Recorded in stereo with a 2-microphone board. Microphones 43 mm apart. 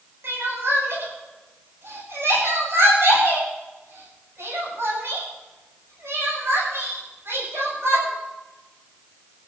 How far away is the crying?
About 8.5 m.